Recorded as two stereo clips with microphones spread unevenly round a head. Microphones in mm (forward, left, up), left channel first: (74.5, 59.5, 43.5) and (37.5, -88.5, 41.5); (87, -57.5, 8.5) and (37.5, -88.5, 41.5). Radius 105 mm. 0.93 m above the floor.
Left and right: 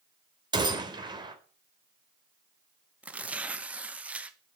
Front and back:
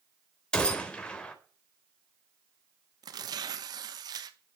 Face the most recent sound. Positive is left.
turn(degrees=180)